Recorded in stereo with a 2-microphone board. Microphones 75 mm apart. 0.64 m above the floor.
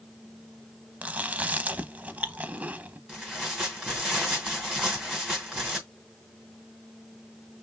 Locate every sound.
1.0 s chewing: 20° right (ahead or behind), 0.5 m
3.1 s tearing paper: 10° right (ahead or behind), 2.5 m